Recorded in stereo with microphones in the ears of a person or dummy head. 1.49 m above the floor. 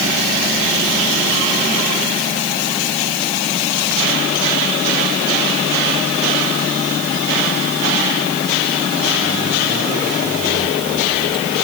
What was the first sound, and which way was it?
Only background noise.